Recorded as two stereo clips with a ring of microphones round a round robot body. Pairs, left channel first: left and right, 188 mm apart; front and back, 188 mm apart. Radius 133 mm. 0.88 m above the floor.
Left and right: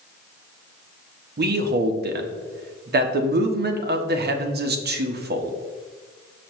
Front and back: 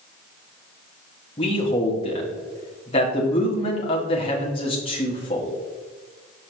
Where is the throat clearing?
No throat clearing in this recording.